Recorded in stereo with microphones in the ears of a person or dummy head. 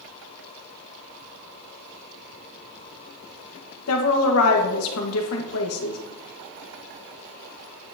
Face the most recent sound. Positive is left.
turn(degrees=85)